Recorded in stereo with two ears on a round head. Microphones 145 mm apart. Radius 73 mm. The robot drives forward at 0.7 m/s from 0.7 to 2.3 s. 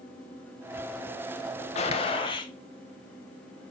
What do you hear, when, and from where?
1.8 s a gunshot: 40° left (ahead or behind), 1.0 m; by 2.5 s 30° left (ahead or behind), 1.2 m